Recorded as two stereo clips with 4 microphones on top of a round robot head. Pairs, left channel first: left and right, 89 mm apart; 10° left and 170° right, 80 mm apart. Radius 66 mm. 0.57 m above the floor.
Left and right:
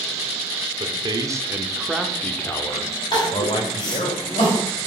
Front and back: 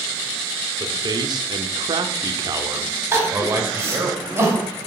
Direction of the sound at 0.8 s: 125° right.